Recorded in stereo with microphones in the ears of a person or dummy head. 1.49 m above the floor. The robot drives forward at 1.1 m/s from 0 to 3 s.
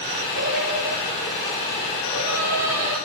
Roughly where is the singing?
Right.